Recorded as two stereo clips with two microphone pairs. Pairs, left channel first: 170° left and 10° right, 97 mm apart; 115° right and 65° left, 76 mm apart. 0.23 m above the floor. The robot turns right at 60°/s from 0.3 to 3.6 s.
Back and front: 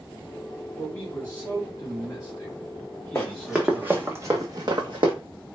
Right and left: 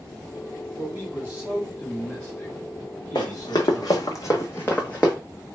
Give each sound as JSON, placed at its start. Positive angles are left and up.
{"t": 0.8, "sound": "a man speaking", "azimuth_deg": 90, "distance_m": 1.4}
{"t": 3.1, "sound": "running footsteps", "azimuth_deg": -130, "distance_m": 0.9}